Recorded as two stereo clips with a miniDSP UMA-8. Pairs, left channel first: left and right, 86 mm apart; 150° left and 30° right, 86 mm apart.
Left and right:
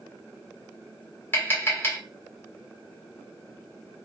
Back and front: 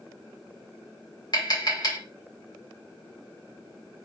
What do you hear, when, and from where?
1.3 s tapping: 145° left, 1.9 m